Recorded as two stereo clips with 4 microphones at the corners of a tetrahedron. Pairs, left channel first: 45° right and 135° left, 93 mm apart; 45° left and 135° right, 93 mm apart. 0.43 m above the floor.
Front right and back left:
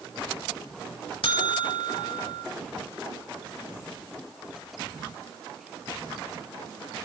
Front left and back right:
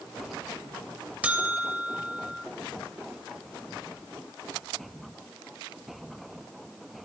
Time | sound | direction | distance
1.2 | a buzzer | 60° right | 0.7 m